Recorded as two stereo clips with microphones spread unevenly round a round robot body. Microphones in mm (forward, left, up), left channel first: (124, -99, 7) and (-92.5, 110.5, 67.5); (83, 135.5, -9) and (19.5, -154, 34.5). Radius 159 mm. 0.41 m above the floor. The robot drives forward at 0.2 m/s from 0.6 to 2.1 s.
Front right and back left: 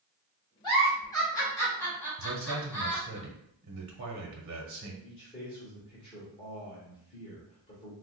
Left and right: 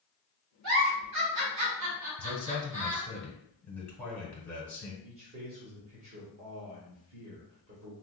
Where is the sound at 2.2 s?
150° left, 1.1 m.